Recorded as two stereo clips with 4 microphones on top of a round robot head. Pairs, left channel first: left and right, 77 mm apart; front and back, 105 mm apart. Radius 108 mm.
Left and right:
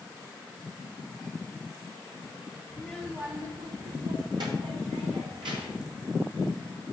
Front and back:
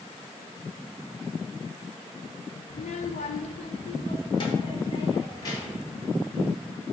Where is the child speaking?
15° left, 0.5 m; by 5.9 s 65° right, 1.7 m.